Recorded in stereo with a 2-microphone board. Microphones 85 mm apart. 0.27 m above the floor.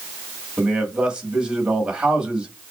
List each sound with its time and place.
0.6 s a man speaking: 15° right (ahead or behind), 1.5 m